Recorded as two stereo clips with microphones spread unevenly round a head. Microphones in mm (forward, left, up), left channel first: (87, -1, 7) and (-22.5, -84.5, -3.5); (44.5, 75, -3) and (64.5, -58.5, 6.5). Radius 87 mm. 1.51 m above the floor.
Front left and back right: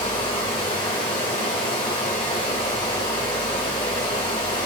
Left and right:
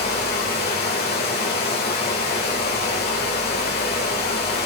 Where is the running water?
100° left, 1.8 m.